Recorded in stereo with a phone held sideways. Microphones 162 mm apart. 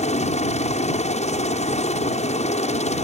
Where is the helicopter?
45° left (ahead or behind).